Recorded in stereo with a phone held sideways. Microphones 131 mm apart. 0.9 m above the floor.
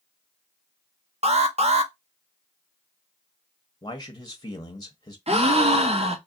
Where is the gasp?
50° right (ahead or behind), 0.7 m.